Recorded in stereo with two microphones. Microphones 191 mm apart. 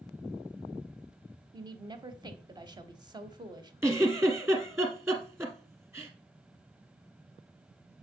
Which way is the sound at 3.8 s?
15° right (ahead or behind).